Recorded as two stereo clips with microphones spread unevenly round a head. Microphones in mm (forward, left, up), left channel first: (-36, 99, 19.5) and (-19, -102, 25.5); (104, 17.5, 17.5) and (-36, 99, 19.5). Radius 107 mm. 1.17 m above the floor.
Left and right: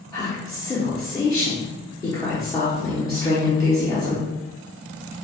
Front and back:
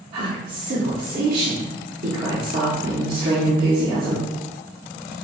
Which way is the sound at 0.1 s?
165° left.